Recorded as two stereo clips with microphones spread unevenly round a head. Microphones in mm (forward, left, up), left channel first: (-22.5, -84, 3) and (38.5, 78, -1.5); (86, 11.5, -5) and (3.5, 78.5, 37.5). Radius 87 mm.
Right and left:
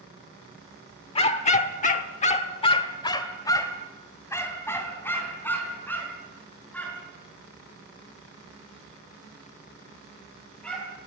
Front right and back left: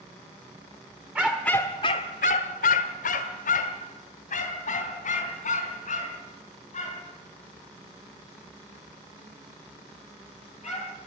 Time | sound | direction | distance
1.1 | a dog barking | 160° right | 1.4 m